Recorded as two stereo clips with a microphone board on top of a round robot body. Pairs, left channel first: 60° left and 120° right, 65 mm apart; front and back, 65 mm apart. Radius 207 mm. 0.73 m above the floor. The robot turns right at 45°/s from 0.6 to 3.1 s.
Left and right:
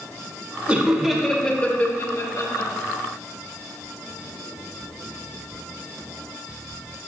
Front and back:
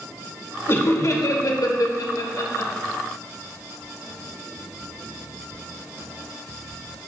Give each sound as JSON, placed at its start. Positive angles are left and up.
{"t": 0.7, "sound": "laughter", "azimuth_deg": -50, "distance_m": 1.7}